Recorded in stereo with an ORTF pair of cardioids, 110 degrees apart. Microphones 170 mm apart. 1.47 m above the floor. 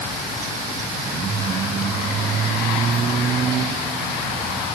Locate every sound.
Only background noise.